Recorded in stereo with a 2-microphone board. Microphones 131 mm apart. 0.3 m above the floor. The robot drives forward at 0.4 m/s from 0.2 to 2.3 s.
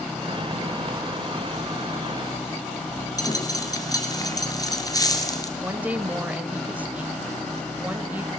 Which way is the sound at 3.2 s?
30° left (ahead or behind).